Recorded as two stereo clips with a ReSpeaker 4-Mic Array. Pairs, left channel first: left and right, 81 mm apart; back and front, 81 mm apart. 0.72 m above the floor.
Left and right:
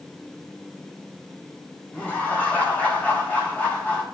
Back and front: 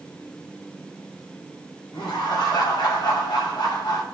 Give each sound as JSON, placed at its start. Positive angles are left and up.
{"t": 1.9, "sound": "laughter", "azimuth_deg": 160, "distance_m": 5.0}